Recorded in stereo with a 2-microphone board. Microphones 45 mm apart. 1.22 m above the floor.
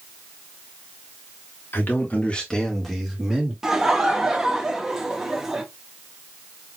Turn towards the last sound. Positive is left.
turn(degrees=-15)  # may be behind; listen again after turning